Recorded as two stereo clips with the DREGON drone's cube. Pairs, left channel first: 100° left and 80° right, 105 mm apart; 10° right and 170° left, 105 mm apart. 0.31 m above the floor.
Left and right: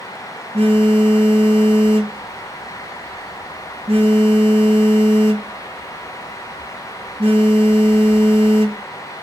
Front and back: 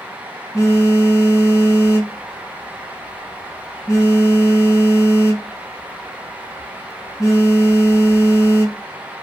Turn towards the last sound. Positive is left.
turn(degrees=-75)